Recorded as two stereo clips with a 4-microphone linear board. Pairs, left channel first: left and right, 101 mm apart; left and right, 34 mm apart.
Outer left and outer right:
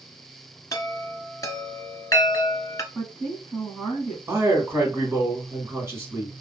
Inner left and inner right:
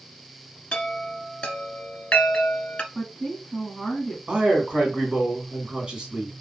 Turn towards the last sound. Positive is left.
turn(degrees=-25)  # may be behind; listen again after turning